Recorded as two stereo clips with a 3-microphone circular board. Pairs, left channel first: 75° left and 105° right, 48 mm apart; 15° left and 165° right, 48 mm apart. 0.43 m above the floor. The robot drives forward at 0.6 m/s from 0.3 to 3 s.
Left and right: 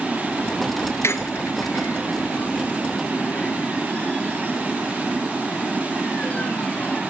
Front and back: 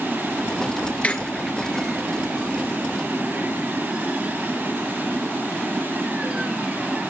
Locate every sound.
1.0 s a squeak: 75° left, 1.0 m; by 7.0 s 135° left, 1.3 m